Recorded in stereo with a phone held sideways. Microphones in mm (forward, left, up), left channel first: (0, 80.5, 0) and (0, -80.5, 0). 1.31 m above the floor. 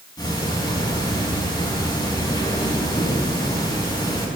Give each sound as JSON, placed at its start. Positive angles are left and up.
{"t": 0.2, "sound": "ticking", "side_deg": 25, "distance_m": 6.0}